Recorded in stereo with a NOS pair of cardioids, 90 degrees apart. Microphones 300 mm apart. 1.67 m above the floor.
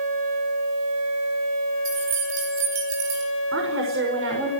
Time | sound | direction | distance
1.9 | keys jangling | 65° right | 7 m
3.5 | a woman speaking | 45° right | 6.5 m